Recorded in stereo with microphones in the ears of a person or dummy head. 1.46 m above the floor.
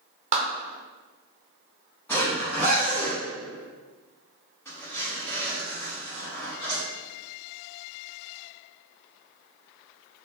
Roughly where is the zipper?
Centre.